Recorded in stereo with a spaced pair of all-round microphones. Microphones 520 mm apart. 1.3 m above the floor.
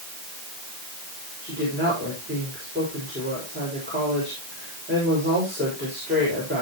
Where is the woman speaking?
20° right (ahead or behind), 6.5 m.